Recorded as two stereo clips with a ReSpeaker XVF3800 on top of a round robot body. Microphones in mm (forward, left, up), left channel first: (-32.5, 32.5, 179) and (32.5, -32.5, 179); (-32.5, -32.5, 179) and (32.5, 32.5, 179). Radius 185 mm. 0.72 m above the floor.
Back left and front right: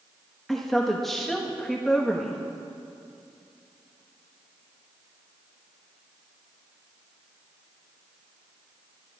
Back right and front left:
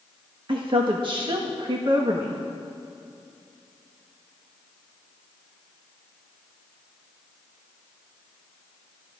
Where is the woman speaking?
50° left, 1.5 m.